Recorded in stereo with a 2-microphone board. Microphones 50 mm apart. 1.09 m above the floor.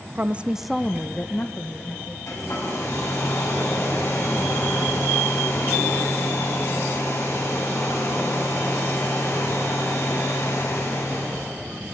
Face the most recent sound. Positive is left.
turn(degrees=70)  # may be behind; listen again after turning